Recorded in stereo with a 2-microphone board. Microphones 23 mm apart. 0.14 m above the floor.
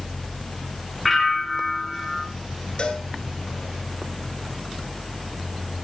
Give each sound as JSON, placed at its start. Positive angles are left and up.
{"t": 1.1, "sound": "a bell", "side_deg": 5, "distance_m": 0.9}
{"t": 2.8, "sound": "a cowbell", "side_deg": 45, "distance_m": 1.4}